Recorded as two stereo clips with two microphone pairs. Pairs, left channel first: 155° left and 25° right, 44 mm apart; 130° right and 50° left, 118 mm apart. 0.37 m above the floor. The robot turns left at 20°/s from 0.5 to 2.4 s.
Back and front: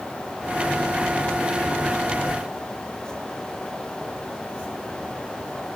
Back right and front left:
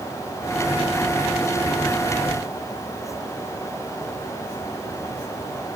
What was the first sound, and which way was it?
Only background noise.